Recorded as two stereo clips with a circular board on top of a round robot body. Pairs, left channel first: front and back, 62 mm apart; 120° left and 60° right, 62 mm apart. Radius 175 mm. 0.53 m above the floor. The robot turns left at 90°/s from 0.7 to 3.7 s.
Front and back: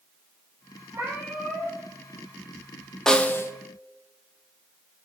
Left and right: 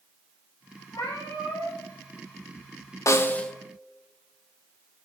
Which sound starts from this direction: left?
A snare drum, at 3.1 s.